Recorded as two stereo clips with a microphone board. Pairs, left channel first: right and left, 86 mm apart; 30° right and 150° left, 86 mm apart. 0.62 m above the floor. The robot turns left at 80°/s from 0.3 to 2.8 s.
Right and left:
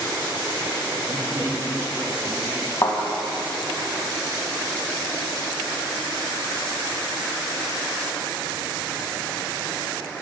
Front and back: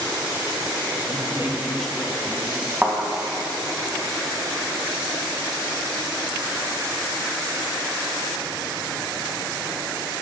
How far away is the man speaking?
About 2 m.